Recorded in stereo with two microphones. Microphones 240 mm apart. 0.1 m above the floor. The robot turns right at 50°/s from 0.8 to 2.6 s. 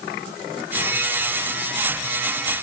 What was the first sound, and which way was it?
Only background noise.